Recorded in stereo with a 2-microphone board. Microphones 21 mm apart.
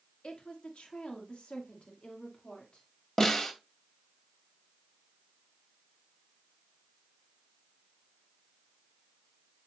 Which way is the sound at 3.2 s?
25° left (ahead or behind).